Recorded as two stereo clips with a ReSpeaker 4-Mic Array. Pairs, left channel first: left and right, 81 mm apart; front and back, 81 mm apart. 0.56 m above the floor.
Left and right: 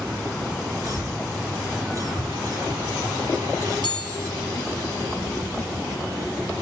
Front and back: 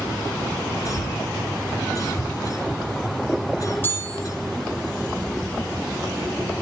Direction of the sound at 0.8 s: 45° right.